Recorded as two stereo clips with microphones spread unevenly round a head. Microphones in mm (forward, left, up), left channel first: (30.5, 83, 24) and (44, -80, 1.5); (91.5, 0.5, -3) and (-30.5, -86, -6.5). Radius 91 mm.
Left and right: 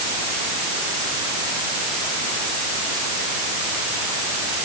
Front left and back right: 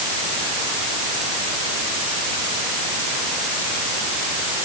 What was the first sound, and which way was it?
Only background noise.